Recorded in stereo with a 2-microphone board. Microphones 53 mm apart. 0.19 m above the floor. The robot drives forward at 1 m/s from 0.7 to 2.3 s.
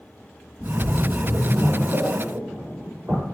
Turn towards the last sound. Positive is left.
turn(degrees=-40)  # may be behind; listen again after turning